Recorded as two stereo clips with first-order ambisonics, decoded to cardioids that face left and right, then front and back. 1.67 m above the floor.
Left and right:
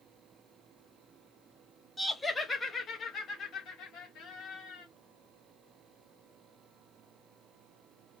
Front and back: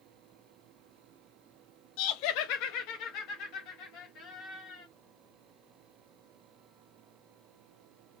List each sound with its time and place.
2.0 s laughter: 5° right, 0.7 m; by 4.9 s 45° left, 1.8 m